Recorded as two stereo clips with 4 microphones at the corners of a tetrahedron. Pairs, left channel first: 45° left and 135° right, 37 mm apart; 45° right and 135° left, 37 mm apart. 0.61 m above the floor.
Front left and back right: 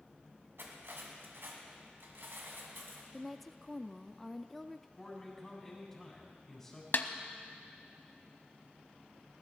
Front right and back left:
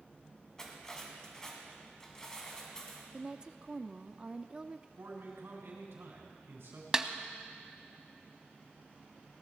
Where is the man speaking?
120° left, 4 m.